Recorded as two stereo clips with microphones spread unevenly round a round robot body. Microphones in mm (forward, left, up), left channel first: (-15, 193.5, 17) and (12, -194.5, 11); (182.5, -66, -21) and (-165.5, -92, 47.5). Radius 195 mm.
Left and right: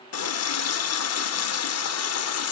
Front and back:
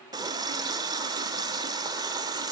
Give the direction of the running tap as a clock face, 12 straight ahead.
9 o'clock.